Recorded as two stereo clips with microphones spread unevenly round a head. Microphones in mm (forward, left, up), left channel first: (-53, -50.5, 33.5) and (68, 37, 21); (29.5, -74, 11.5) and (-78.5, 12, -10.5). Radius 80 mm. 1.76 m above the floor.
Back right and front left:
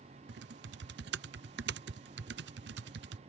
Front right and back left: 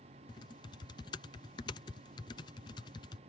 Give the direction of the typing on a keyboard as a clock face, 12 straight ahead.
11 o'clock.